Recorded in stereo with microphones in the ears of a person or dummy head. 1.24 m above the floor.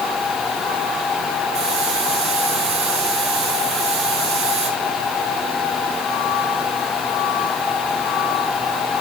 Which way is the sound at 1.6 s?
25° right (ahead or behind).